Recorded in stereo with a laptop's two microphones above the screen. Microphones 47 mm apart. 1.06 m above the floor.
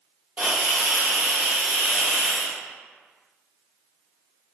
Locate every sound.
0.4 s a hiss: 35° right (ahead or behind), 1.7 m